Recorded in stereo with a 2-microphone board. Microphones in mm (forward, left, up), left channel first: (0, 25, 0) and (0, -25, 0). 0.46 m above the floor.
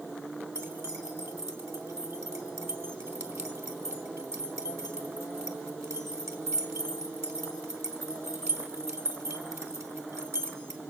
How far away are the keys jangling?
About 3 m.